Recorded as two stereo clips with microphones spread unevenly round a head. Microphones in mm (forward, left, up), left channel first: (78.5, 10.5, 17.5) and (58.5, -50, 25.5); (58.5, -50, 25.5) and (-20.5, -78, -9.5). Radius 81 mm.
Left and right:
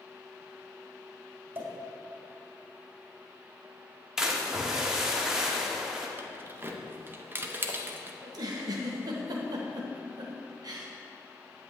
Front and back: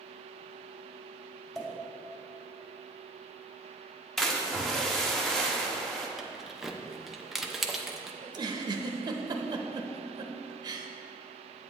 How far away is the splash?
About 1.1 m.